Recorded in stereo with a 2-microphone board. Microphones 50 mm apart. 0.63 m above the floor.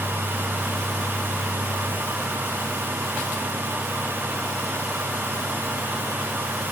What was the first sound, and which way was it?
Only background noise.